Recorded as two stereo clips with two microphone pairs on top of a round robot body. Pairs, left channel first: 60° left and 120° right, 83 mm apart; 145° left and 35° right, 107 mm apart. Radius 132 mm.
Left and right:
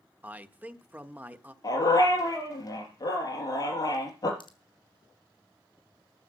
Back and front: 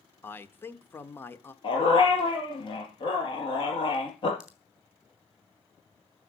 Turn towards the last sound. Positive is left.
turn(degrees=50)